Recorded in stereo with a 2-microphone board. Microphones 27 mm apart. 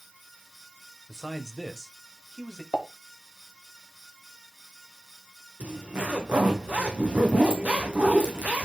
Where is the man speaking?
15° right (ahead or behind), 1.3 m; by 2.6 s 20° left (ahead or behind), 1.6 m.